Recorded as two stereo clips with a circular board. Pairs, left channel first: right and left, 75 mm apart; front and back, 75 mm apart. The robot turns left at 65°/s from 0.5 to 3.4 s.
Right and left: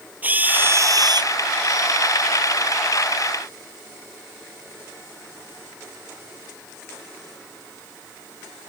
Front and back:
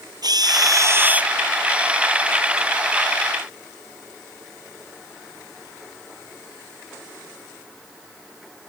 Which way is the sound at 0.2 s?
155° left.